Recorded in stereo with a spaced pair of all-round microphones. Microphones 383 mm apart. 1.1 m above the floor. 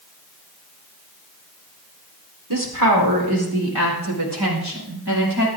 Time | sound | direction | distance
2.5 | a woman speaking | 55° right (ahead or behind) | 4 m